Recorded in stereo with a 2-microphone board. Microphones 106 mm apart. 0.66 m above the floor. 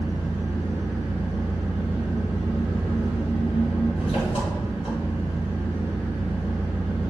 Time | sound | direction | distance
0.0 | an engine running | 70° left (ahead or behind) | 2.0 m